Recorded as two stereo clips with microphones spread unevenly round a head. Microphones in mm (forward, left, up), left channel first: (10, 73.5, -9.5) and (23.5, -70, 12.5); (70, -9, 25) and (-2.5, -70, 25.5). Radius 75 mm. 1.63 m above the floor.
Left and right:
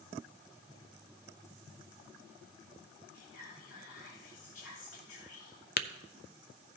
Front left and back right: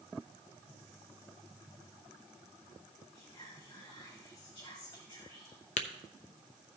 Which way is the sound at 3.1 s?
110° left.